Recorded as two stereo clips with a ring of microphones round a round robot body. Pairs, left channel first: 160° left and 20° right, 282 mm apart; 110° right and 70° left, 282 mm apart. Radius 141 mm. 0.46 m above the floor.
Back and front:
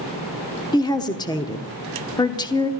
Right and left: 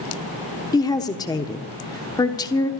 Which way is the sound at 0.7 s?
160° right.